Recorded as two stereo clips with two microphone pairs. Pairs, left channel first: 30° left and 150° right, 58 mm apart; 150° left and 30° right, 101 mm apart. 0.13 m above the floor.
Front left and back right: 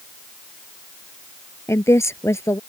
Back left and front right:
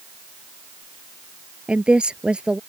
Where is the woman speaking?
50° left.